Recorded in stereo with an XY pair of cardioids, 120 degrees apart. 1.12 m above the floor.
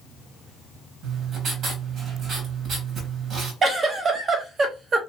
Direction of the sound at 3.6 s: 40° right.